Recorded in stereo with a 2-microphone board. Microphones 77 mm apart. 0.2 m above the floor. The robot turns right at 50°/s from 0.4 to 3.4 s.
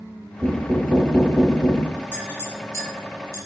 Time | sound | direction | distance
0.4 | knocking | 45° right | 2 m
2.1 | a clink | 20° left (ahead or behind) | 1.4 m